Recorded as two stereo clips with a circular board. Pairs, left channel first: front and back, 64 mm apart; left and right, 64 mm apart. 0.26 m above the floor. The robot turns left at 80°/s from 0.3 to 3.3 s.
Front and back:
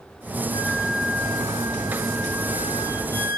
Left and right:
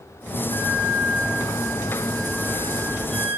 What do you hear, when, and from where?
0.5 s a flute: 150° right, 6 m; by 3.4 s 15° right, 6 m